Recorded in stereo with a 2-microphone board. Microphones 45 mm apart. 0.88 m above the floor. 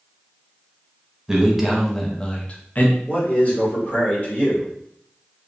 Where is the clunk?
I don't hear a clunk.